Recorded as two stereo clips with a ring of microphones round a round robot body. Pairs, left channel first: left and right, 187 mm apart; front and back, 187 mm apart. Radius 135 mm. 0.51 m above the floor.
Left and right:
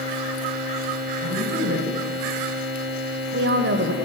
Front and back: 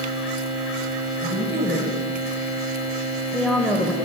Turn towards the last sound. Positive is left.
turn(degrees=-80)